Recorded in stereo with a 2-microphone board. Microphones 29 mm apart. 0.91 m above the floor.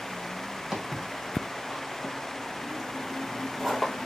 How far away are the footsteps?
About 1.6 m.